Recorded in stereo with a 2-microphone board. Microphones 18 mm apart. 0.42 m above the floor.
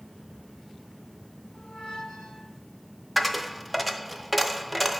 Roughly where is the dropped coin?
Centre.